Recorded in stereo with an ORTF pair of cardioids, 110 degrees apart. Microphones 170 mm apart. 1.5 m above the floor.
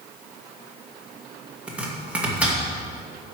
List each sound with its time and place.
1.7 s chopping: 10° right, 2.5 m